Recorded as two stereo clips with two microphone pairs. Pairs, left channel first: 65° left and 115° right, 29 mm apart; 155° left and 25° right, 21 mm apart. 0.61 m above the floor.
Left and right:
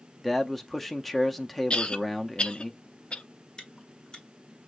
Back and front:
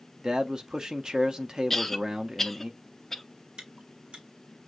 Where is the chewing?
5° left, 1.5 m.